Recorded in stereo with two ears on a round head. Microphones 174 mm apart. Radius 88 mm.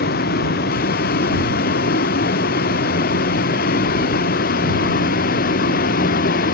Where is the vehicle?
50° left (ahead or behind); by 6.5 s 45° left (ahead or behind).